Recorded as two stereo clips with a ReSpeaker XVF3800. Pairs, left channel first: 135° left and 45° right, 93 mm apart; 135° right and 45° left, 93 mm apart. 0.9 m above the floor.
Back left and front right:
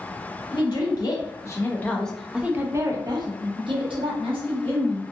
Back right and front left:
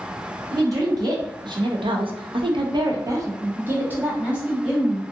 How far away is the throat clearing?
No throat clearing in this recording.